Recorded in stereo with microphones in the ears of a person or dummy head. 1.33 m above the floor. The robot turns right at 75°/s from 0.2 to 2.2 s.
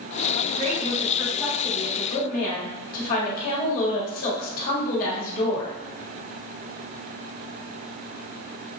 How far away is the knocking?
I don't hear knocking.